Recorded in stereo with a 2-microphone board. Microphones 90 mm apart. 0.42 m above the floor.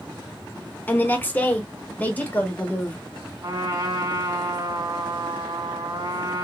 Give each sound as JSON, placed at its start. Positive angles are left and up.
{"t": 0.9, "sound": "a woman speaking", "side_deg": 20, "distance_m": 0.9}
{"t": 3.4, "sound": "a trumpet", "side_deg": -50, "distance_m": 2.5}